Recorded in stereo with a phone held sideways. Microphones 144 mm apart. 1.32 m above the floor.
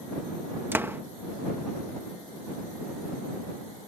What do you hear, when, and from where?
0.7 s a door slam: 15° right (ahead or behind)